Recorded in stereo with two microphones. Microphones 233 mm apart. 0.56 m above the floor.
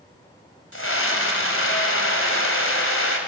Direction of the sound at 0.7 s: 70° left (ahead or behind).